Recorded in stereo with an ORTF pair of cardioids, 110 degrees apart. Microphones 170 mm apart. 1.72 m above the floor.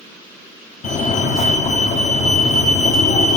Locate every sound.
0.8 s a fire alarm: 50° left, 1.7 m